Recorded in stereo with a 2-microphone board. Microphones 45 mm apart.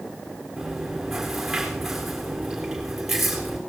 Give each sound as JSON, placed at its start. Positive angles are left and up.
{"t": 0.6, "sound": "chewing", "side_deg": -5, "distance_m": 3.5}